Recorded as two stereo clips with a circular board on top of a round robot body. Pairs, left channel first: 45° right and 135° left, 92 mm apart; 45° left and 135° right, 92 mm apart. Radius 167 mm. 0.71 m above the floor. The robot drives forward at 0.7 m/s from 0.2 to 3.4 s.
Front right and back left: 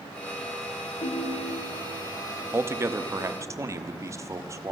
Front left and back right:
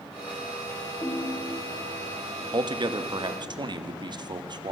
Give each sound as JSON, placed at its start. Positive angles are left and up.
{"t": 1.0, "sound": "a ringtone", "azimuth_deg": -25, "distance_m": 6.5}
{"t": 2.5, "sound": "a man speaking", "azimuth_deg": -165, "distance_m": 1.4}